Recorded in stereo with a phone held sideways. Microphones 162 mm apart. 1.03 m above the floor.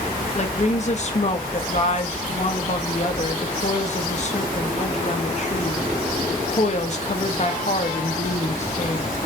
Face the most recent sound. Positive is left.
turn(degrees=50)  # may be behind; listen again after turning